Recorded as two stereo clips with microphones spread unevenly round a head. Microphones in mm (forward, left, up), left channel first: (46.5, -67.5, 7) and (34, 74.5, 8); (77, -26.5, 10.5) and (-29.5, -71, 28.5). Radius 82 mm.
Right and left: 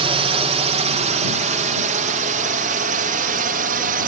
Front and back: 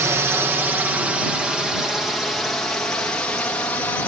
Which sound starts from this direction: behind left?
A drone, at 0.0 s.